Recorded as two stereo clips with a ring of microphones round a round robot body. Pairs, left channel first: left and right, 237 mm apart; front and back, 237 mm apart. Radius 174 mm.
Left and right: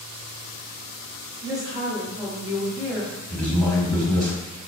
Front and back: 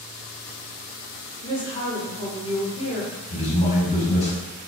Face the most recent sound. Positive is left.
turn(degrees=5)